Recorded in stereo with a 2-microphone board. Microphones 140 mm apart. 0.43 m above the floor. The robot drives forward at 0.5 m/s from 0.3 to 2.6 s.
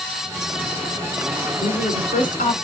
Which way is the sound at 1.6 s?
75° left (ahead or behind).